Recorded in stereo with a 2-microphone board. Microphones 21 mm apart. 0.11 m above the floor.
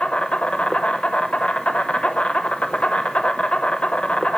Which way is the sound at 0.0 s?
65° left (ahead or behind).